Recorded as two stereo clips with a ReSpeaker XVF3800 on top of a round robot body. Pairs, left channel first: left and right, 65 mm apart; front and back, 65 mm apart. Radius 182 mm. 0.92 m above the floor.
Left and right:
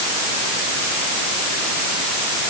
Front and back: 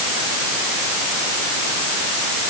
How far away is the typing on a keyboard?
I don't hear typing on a keyboard.